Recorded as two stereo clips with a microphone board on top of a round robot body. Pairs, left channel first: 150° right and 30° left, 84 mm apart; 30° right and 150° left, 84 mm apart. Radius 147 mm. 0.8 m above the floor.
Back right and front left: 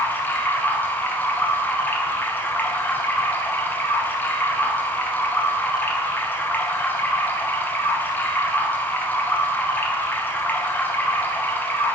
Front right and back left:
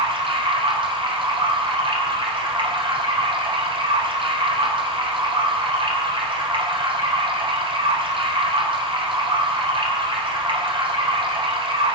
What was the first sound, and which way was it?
Running water, 140° left.